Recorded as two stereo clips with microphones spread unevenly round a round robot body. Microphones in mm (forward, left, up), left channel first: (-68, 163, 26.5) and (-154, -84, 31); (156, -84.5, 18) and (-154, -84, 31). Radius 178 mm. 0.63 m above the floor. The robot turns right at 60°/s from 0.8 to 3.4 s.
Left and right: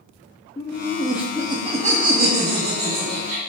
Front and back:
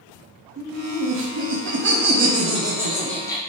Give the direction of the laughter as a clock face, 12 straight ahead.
7 o'clock.